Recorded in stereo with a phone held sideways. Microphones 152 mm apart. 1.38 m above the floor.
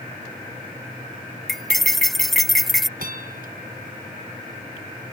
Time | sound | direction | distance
1.5 | cutlery clinking | centre (ahead or behind) | ?
3.0 | a bell | 70° right (ahead or behind) | ?